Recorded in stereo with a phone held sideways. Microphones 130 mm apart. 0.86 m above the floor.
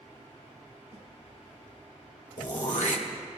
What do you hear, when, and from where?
0.9 s a snare drum: 70° right (ahead or behind), 3.5 m
2.4 s throat clearing: 75° left (ahead or behind), 1.4 m